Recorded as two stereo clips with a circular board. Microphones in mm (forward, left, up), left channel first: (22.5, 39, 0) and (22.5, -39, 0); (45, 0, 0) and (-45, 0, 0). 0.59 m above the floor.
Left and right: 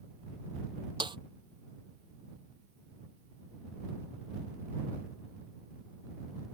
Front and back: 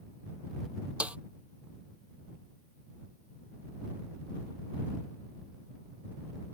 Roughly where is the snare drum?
Right.